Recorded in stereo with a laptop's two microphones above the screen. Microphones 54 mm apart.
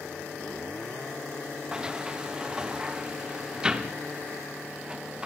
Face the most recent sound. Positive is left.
turn(degrees=-15)  # may be behind; listen again after turning